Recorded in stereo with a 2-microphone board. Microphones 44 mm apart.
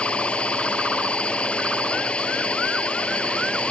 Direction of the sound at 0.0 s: 30° left (ahead or behind).